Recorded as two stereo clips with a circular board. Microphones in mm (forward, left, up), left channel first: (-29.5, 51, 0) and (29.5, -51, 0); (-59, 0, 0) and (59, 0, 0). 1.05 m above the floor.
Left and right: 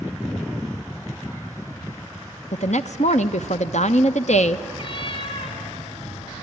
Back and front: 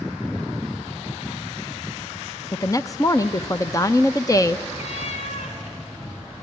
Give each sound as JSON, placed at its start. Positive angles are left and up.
{"t": 2.5, "sound": "a woman speaking", "azimuth_deg": 120, "distance_m": 0.7}
{"t": 4.8, "sound": "a cat meowing", "azimuth_deg": 165, "distance_m": 2.0}